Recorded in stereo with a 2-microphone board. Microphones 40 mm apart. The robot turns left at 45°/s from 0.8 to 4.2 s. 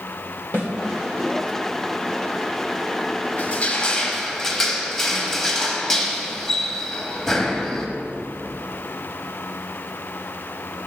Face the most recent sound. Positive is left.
turn(degrees=10)